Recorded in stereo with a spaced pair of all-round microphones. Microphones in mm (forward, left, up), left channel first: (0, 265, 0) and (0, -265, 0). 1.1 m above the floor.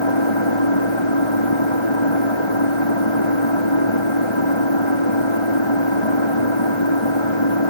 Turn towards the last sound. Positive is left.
turn(degrees=60)  # may be behind; listen again after turning